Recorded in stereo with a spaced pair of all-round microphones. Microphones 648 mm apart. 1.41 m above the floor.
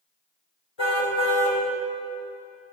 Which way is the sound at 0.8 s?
40° left (ahead or behind).